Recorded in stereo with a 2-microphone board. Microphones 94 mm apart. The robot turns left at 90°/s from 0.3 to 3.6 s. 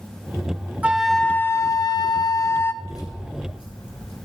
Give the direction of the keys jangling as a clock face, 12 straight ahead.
7 o'clock.